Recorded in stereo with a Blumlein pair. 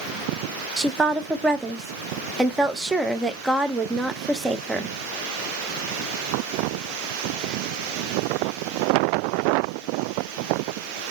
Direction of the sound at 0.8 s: 5° right.